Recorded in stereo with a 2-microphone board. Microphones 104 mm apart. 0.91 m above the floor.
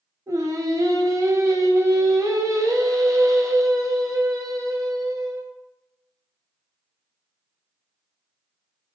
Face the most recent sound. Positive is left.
turn(degrees=-30)  # may be behind; listen again after turning